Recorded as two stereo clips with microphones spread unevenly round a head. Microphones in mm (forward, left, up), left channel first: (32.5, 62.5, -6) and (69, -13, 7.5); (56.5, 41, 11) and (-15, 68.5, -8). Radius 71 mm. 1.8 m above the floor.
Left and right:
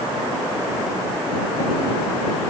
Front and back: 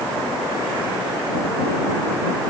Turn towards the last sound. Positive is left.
No sound to turn to.